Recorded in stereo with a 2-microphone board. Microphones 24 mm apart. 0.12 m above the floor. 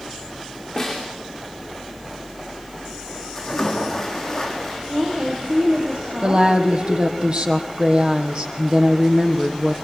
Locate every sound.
0.8 s a snare drum: 15° left (ahead or behind), 8.5 m
3.4 s a splash: 15° left (ahead or behind), 5 m
4.9 s a woman speaking: 65° right (ahead or behind), 5.5 m
6.2 s a woman speaking: 40° right (ahead or behind), 3.5 m